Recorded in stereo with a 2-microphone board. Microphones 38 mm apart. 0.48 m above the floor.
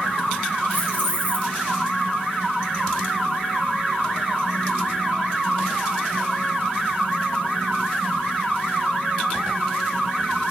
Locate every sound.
0.7 s keys jangling: 40° left (ahead or behind), 3.5 m